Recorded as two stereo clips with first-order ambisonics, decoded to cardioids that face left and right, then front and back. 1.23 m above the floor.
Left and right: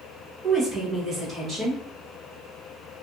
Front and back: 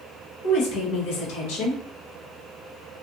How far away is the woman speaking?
About 1.0 m.